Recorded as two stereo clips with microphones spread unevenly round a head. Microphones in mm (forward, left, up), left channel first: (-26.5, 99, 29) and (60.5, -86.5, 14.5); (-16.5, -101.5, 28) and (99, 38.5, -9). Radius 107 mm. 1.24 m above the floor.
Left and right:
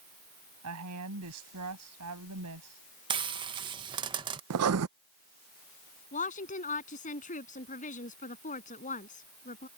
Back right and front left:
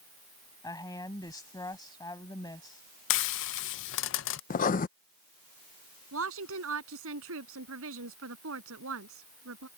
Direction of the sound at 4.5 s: 90° right.